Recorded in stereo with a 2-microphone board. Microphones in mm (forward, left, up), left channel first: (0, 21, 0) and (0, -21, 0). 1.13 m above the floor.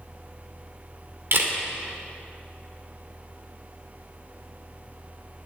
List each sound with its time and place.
1.3 s a camera shutter: 60° right (ahead or behind), 2.5 m